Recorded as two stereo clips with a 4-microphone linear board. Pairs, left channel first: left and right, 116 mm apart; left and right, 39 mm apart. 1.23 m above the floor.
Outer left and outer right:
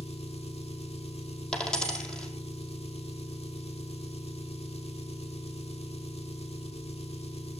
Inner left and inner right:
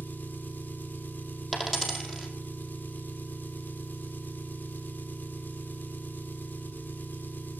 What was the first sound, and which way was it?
An engine running, 60° left (ahead or behind).